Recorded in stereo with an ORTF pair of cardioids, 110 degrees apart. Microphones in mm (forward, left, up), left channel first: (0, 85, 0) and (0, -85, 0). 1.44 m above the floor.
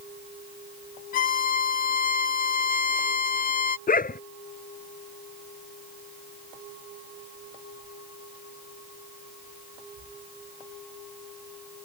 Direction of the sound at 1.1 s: 55° left.